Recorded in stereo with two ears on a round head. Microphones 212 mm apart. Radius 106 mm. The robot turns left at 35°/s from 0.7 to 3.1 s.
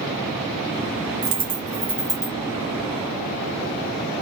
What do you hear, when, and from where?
1.2 s a dropped coin: 30° right (ahead or behind), 1.0 m; by 2.4 s 10° left (ahead or behind), 1.0 m